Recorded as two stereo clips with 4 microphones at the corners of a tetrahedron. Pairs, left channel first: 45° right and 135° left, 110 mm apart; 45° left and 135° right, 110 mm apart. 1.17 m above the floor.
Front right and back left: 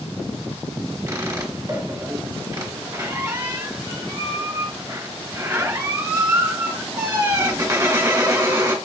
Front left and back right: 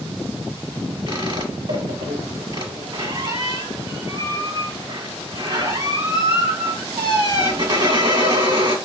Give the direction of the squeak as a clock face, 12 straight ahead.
6 o'clock.